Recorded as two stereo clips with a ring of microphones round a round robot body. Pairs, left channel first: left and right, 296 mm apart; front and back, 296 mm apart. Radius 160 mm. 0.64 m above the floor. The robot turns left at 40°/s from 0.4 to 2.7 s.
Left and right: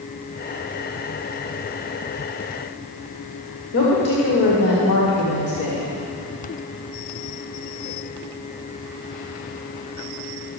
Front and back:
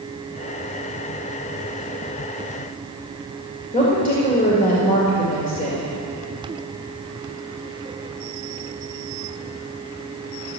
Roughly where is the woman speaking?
Ahead left.